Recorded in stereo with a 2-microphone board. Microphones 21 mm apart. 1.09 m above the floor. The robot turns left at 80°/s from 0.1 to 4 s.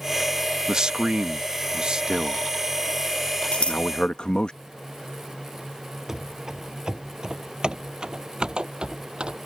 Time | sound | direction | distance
0.7 | a man speaking | 30° right (ahead or behind) | ?
3.5 | scissors | 75° left (ahead or behind) | ?
6.1 | running footsteps | 30° right (ahead or behind) | ?